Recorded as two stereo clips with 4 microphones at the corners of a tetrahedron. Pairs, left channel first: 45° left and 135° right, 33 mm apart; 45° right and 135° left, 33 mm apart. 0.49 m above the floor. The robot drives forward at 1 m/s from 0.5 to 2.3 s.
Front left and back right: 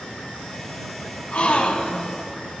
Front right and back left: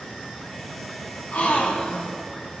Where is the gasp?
5° right, 1.4 m; by 2.1 s 15° right, 0.6 m.